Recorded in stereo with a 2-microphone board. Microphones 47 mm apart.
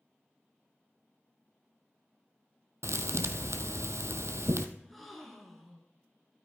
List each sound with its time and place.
2.8 s a thud: 80° right, 0.9 m
4.8 s a gasp: 5° left (ahead or behind), 2 m